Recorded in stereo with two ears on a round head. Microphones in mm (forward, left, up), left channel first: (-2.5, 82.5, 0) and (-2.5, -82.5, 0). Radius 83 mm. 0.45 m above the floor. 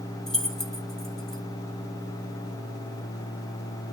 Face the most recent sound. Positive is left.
turn(degrees=0)  # may be behind; listen again after turning